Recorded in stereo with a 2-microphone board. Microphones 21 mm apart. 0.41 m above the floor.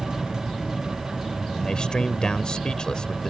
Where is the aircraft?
65° left (ahead or behind).